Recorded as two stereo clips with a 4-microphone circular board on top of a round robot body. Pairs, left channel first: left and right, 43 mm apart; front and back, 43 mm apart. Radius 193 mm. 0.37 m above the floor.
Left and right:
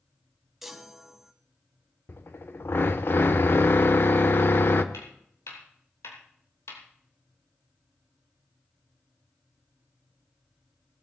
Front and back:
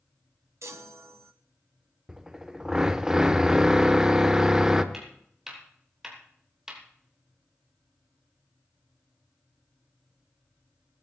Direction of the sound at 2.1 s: 105° left.